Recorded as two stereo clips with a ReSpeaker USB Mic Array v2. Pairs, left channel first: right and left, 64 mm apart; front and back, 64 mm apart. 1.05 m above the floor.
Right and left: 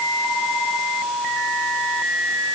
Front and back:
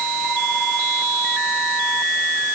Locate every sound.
Only background noise.